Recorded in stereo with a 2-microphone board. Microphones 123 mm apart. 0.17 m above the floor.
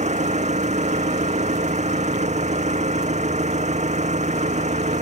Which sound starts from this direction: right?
An engine running, at 0.0 s.